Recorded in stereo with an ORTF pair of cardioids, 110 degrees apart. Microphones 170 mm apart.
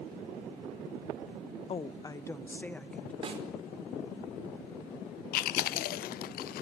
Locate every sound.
1.7 s a woman speaking: 35° left, 1.0 m; by 3.1 s 5° left, 2.5 m
3.2 s a snare drum: 35° right, 5.5 m
5.3 s chewing: 65° left, 0.6 m